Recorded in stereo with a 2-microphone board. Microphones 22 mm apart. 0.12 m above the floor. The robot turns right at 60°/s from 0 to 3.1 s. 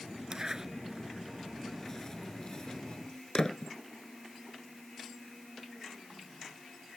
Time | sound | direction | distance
0.3 | a zipper | 35° right (ahead or behind) | ?